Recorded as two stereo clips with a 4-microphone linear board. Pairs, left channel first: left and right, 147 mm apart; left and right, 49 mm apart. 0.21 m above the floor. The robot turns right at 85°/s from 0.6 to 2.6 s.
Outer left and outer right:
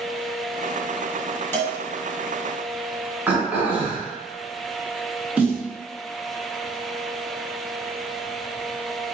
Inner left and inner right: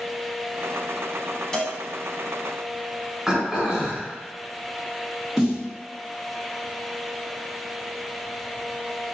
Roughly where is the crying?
I don't hear crying.